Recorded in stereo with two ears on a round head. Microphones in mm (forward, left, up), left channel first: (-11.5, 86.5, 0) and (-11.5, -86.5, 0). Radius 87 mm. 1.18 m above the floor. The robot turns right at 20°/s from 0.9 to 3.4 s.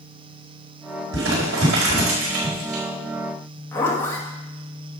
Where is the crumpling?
70° right (ahead or behind), 4.5 m; by 2.8 s 75° right (ahead or behind), 4.5 m.